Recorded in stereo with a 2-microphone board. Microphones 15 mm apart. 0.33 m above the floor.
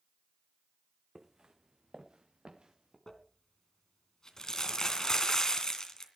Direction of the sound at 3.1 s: 40° left (ahead or behind).